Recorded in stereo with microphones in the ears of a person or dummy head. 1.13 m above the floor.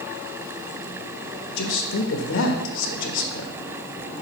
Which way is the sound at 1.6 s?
70° left (ahead or behind).